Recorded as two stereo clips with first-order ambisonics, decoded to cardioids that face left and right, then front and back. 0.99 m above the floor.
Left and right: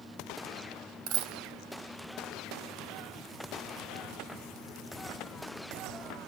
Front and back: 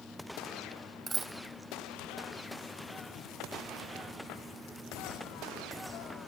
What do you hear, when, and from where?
1.1 s a dropped coin: 95° right, 2.5 m